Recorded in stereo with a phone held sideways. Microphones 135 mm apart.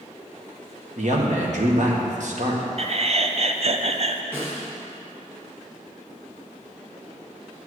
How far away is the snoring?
I don't hear snoring.